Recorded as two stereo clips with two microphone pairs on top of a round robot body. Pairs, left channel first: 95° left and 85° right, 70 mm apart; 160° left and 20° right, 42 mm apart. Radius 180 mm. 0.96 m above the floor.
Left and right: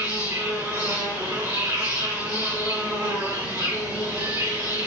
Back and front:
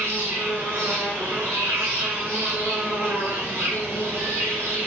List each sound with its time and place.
0.0 s an insect: 45° right, 3.5 m